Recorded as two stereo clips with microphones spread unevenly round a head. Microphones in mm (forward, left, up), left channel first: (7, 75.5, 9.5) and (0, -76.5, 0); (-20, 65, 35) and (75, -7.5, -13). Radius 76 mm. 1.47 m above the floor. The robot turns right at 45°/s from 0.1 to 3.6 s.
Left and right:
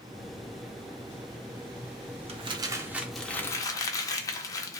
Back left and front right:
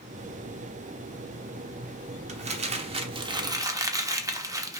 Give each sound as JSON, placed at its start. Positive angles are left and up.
{"t": 2.3, "sound": "crumpling", "azimuth_deg": -45, "distance_m": 0.5}